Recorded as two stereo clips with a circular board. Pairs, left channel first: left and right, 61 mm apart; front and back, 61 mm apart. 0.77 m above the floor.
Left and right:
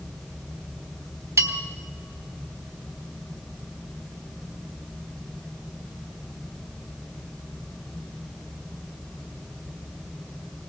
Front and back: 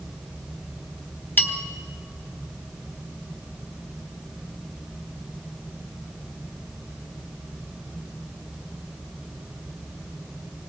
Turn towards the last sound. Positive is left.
turn(degrees=-55)